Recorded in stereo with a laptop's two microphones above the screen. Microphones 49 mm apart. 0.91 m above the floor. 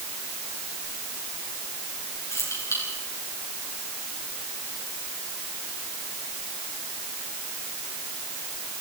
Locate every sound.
2.3 s keys jangling: 80° left, 9 m